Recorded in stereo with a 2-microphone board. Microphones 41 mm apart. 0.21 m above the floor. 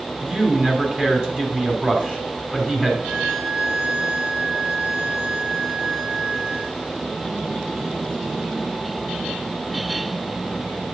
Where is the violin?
75° right (ahead or behind), 4 m.